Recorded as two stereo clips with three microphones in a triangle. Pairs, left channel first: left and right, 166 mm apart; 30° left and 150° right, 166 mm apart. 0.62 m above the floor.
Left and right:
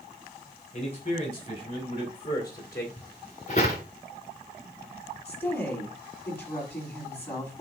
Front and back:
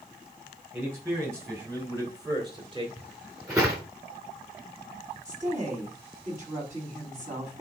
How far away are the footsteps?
About 4 m.